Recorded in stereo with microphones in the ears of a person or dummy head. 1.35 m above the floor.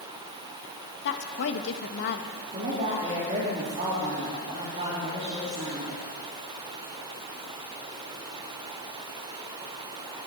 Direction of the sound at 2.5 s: 35° right (ahead or behind).